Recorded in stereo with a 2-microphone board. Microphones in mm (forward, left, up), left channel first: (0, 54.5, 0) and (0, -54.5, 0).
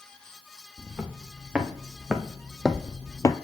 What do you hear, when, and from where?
0.8 s footsteps: 15° right (ahead or behind), 2 m; by 3.4 s 35° left (ahead or behind), 0.5 m